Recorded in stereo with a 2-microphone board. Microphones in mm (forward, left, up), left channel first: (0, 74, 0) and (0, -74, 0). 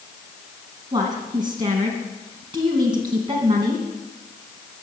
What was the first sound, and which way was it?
A woman speaking, 30° right (ahead or behind).